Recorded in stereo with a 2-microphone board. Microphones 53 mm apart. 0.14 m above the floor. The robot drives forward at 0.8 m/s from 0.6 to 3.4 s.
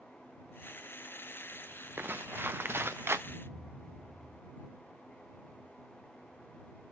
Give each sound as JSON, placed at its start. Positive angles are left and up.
{"t": 2.0, "sound": "footsteps", "side_deg": -40, "distance_m": 1.0}
{"t": 3.3, "sound": "a thud", "side_deg": -50, "distance_m": 4.0}